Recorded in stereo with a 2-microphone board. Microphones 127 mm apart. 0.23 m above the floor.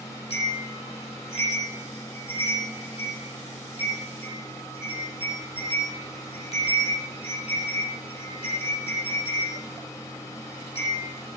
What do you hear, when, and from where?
0.3 s a bell: 50° left (ahead or behind), 6.5 m